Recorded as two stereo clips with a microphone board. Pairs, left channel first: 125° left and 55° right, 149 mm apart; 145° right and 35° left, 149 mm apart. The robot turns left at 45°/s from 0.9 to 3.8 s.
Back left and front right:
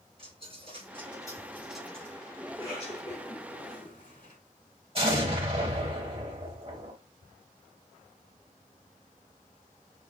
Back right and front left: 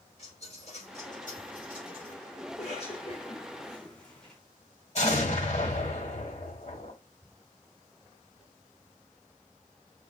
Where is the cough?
170° right, 2.5 m; by 4.4 s 130° left, 2.5 m.